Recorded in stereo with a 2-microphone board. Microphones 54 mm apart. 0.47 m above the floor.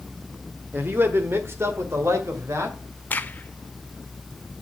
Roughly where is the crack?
Left.